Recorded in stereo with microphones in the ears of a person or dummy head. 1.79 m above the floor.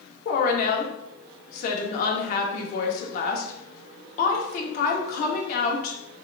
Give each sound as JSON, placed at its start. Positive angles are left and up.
{"t": 0.2, "sound": "a woman speaking", "side_deg": 50, "distance_m": 0.9}